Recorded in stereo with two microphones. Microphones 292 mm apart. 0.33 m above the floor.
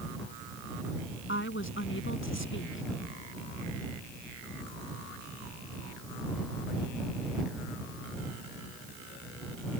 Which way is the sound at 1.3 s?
45° left (ahead or behind).